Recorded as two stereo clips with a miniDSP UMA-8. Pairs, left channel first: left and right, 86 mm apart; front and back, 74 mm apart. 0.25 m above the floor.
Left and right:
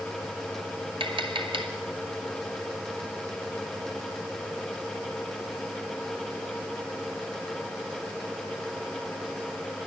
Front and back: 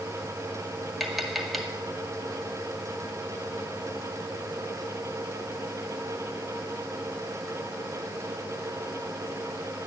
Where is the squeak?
No squeak in this recording.